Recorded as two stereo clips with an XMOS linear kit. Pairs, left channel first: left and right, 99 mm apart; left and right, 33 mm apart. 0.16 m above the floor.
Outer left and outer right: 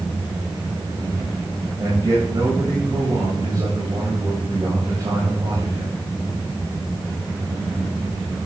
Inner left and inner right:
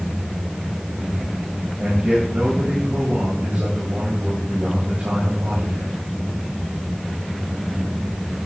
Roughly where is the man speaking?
Right.